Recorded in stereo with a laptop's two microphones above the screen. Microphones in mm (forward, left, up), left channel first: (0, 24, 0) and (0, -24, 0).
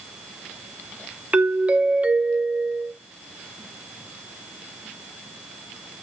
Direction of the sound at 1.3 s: 30° right (ahead or behind).